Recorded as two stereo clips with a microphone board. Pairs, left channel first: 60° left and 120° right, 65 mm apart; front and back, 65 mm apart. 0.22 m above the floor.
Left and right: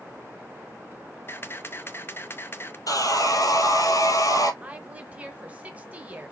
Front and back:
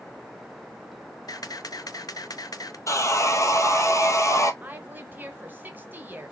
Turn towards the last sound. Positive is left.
turn(degrees=-165)